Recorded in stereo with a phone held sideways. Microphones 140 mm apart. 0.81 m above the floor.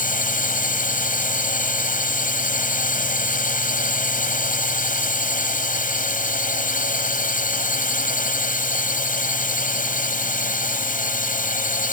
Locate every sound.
0.0 s a drone: 75° left (ahead or behind)